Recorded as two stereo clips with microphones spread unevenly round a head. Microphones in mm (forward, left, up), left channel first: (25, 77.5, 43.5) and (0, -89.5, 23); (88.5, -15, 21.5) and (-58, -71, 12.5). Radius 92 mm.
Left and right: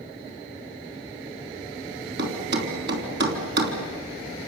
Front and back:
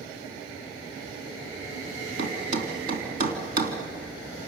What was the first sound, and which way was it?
A thud, 130° right.